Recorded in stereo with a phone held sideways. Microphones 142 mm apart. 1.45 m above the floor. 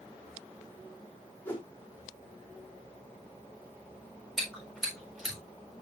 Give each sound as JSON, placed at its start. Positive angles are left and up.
{"t": 1.4, "sound": "a whoosh", "side_deg": 10, "distance_m": 4.5}
{"t": 4.4, "sound": "chewing", "side_deg": 0, "distance_m": 7.0}